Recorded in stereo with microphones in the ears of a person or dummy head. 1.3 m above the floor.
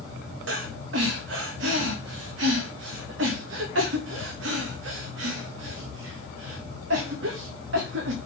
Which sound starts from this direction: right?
Breathing, at 0.5 s.